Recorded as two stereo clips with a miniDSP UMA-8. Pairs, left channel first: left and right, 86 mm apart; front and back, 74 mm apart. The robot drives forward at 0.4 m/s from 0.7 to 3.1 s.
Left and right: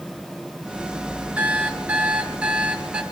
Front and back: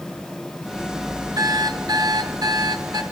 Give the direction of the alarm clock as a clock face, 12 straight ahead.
5 o'clock.